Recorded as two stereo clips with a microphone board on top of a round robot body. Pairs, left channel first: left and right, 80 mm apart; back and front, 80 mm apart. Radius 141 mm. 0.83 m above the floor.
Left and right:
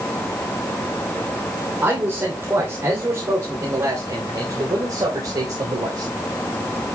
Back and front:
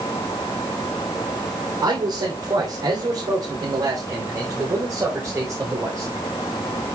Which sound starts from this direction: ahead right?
A man speaking, at 1.8 s.